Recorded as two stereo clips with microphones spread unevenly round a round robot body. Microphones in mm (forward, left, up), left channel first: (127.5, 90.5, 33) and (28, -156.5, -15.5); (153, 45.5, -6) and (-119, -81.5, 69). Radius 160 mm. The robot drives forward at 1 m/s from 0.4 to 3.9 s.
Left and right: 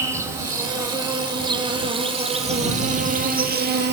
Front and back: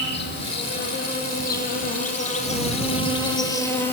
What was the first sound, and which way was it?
An insect, 30° right.